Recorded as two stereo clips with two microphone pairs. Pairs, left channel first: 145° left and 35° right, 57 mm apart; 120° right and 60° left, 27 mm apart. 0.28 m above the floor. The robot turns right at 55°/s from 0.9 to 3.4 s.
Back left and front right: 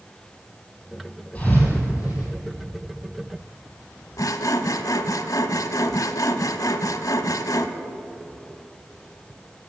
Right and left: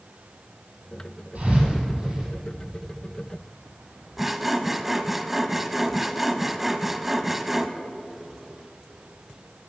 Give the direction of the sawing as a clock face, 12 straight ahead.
7 o'clock.